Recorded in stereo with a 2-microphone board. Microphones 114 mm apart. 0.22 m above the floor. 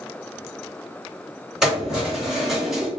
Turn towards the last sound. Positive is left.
turn(degrees=-5)  # may be behind; listen again after turning